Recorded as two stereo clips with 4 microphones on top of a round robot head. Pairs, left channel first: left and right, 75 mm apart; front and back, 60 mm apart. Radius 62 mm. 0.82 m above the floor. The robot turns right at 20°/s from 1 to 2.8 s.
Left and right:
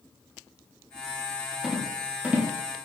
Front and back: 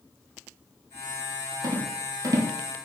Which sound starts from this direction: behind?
A rattle, at 1.6 s.